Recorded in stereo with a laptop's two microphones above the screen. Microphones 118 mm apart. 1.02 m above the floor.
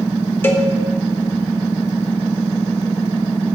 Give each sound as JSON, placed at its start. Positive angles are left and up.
{"t": 0.4, "sound": "a cowbell", "side_deg": 20, "distance_m": 0.7}